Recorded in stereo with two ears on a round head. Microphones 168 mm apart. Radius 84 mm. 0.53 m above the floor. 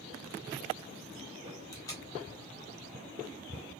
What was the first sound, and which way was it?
Tape being pulled, 15° left (ahead or behind).